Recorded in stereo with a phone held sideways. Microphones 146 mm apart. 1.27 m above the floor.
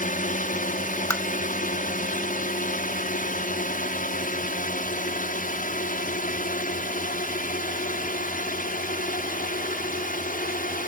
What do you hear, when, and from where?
0.0 s a drone: 65° left (ahead or behind); by 10.9 s 70° left (ahead or behind)
1.1 s tapping: 20° left (ahead or behind)